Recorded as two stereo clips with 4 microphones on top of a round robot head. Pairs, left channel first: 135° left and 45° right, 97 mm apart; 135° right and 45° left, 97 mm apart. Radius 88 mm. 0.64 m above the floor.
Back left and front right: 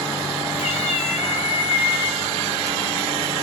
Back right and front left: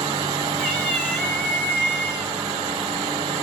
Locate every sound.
0.6 s a cat meowing: 150° left, 5 m